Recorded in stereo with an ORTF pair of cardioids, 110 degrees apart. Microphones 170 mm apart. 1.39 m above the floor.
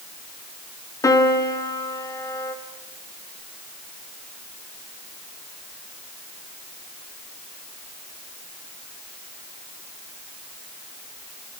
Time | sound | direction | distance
1.0 | a piano | 20° left | 2.5 m